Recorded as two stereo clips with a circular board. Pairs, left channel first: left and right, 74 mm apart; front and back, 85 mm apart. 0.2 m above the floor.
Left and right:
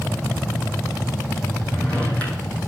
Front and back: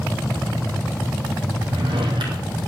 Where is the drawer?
160° left, 2.5 m.